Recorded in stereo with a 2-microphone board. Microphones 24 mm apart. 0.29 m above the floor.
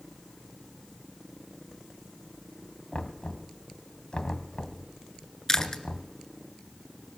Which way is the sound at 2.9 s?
45° left (ahead or behind).